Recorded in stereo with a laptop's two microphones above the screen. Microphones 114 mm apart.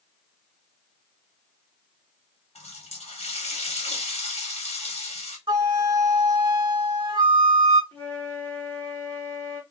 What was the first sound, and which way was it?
A running tap, 65° left (ahead or behind).